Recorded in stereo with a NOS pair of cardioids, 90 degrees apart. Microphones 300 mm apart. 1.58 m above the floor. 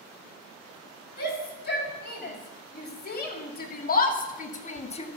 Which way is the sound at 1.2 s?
35° left.